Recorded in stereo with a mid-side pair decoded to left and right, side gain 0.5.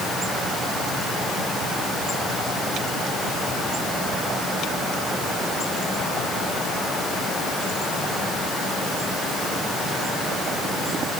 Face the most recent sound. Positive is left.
No sound to turn to.